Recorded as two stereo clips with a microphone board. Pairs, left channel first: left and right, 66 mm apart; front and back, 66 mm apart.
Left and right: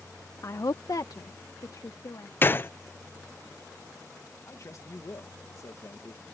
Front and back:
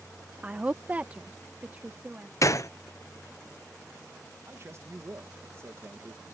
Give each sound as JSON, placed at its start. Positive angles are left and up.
{"t": 0.4, "sound": "a woman speaking", "azimuth_deg": 115}
{"t": 2.4, "sound": "a gunshot", "azimuth_deg": 30}
{"t": 4.5, "sound": "a man speaking", "azimuth_deg": 130}